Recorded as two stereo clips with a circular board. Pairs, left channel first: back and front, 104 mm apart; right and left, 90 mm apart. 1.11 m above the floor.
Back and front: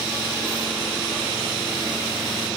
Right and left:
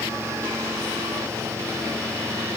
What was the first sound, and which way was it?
Only background noise.